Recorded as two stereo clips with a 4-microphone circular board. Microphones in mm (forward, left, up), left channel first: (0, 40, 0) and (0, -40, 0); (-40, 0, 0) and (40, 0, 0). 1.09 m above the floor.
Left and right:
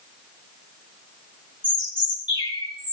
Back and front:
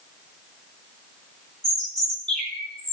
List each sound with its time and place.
1.6 s a bird: 100° left, 4 m